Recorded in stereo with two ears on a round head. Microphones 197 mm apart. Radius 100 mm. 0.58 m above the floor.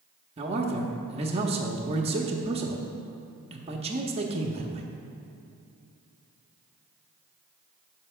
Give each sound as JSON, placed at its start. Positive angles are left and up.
{"t": 0.4, "sound": "a man speaking", "side_deg": -25, "distance_m": 0.7}